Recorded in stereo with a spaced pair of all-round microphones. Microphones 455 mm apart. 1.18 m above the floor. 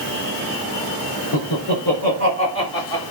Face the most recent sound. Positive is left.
turn(degrees=50)  # may be behind; listen again after turning